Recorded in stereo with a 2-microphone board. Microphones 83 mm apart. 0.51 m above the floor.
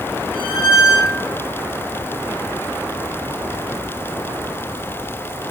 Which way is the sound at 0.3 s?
80° left.